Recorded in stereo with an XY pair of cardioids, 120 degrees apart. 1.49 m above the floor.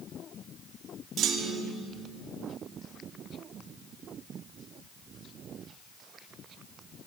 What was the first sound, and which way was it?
A clunk, 65° right.